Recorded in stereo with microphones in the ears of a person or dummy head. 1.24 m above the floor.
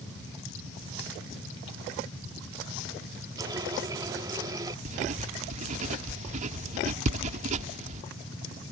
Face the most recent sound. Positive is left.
turn(degrees=-45)  # may be behind; listen again after turning